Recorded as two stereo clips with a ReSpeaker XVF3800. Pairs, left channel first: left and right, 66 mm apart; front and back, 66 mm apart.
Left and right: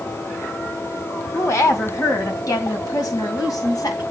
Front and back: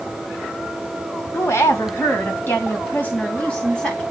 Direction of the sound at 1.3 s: 45° left.